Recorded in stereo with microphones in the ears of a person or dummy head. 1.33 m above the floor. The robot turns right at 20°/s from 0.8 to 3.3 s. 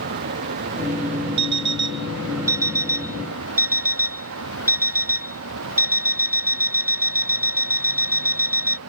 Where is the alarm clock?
60° right; by 8.8 s 25° right.